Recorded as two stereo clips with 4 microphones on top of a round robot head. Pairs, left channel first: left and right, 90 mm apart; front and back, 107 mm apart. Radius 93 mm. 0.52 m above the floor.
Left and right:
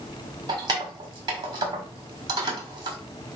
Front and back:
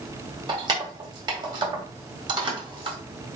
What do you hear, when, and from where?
0.5 s keys jangling: 130° right, 1.5 m